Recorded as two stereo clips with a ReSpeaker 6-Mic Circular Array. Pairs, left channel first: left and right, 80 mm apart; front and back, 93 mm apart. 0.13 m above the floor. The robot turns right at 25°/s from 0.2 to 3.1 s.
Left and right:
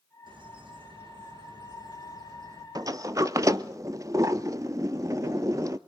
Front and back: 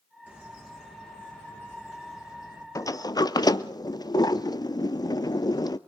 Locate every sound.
0.3 s a bird: 105° right, 6 m; by 2.6 s 50° right, 6 m
2.8 s a sliding door: 50° right, 0.7 m; by 5.8 s 45° right, 0.7 m